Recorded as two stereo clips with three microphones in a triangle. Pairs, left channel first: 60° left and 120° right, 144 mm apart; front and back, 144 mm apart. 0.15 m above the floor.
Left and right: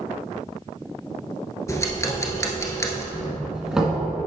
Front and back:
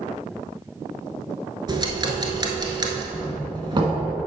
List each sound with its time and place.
1.7 s ticking: 125° left, 1.0 m
3.1 s a doorbell: 160° left, 1.7 m